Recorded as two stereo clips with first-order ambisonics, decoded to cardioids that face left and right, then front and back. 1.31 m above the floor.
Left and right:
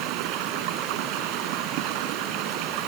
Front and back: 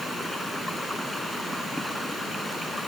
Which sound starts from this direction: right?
Running water, at 0.0 s.